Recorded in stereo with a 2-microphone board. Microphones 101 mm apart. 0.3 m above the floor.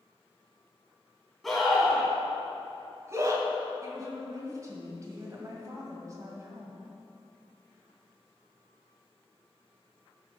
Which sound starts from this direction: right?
A woman speaking, at 3.8 s.